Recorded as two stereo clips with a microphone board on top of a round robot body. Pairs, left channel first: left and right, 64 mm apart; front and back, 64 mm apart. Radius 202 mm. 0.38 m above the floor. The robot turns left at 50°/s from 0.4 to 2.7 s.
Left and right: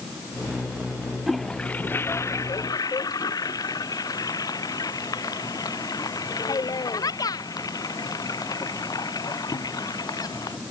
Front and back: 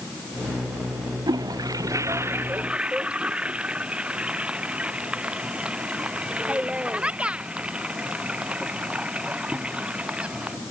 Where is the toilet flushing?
Straight behind; by 10.6 s 110° left.